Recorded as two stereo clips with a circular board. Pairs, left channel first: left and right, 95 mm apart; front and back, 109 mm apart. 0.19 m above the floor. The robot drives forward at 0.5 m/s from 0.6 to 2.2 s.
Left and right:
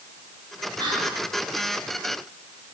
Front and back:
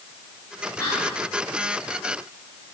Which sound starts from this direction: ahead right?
Whispering, at 0.8 s.